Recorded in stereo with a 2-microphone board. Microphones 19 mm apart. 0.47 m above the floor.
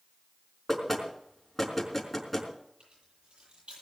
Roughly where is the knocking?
Centre.